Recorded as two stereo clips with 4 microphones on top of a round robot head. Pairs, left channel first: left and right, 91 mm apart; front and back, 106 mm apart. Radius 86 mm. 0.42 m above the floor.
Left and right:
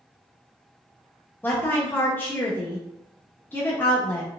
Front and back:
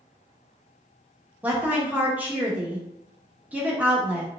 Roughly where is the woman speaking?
Behind left.